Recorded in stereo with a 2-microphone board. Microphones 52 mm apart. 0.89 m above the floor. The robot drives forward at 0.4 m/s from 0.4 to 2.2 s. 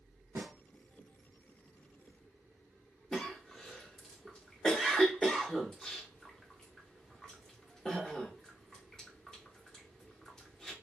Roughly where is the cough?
Centre.